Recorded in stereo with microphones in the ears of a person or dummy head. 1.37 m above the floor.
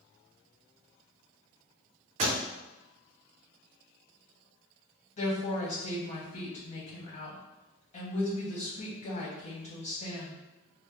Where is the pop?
40° right (ahead or behind), 0.7 m.